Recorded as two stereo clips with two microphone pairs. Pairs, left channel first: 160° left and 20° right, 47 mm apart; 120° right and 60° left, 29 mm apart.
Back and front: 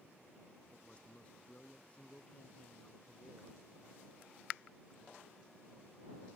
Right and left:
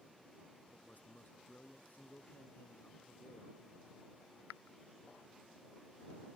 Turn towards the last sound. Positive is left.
turn(degrees=-140)